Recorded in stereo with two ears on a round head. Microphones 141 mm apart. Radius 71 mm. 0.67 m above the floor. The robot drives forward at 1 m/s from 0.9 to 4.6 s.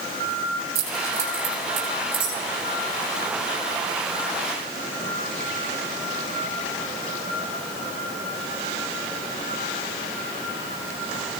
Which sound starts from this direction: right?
Keys jangling, at 0.8 s.